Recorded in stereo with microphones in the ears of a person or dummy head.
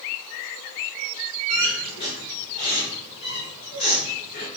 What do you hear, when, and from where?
1.5 s a squeak: 25° left (ahead or behind), 1.4 m